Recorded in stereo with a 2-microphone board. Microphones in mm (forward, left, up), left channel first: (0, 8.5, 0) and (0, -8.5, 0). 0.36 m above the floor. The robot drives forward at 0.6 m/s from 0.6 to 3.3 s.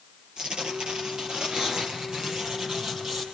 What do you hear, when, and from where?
0.4 s tearing paper: 45° right (ahead or behind), 4 m; by 3.2 s 30° right (ahead or behind), 5 m